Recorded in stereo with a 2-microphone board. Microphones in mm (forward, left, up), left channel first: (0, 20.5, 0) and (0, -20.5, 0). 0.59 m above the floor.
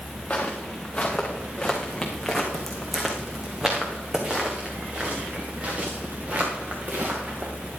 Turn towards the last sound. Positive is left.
turn(degrees=-40)  # may be behind; listen again after turning